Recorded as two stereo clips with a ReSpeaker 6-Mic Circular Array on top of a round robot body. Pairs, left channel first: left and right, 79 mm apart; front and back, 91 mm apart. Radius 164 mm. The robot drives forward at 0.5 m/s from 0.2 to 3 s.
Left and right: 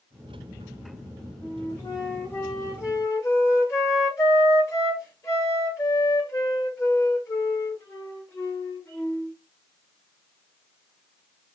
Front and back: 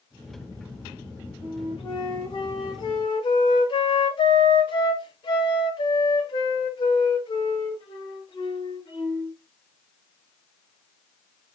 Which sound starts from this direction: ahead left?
A flute, at 1.4 s.